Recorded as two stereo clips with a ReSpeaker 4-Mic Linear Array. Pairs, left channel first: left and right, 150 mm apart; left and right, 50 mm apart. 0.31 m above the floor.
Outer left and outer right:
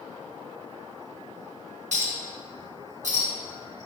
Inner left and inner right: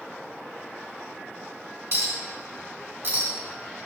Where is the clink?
55° right (ahead or behind), 1.8 m.